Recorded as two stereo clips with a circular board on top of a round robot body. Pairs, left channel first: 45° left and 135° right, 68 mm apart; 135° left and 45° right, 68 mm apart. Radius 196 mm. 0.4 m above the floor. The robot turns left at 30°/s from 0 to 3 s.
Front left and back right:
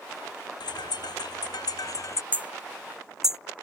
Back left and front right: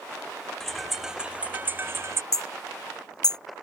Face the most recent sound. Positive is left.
turn(degrees=140)